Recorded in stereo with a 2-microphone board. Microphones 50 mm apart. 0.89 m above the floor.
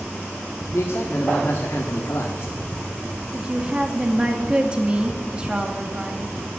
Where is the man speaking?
60° left (ahead or behind), 1.5 m.